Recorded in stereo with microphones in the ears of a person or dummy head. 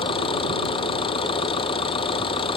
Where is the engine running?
25° left (ahead or behind).